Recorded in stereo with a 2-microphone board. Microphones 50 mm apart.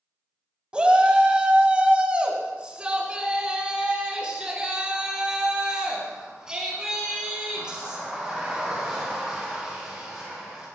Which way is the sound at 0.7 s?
20° right (ahead or behind).